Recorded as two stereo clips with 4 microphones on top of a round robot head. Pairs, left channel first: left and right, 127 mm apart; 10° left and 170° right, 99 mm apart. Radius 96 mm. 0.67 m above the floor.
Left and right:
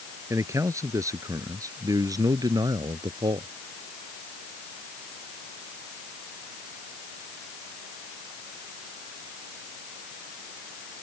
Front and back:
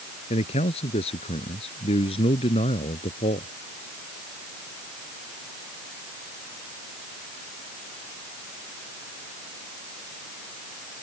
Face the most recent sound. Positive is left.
turn(degrees=-30)